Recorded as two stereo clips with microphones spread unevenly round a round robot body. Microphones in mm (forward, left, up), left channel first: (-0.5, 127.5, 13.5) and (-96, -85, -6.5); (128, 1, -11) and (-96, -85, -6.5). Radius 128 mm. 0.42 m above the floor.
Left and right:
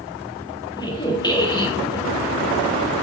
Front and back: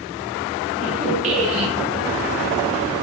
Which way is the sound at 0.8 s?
140° left.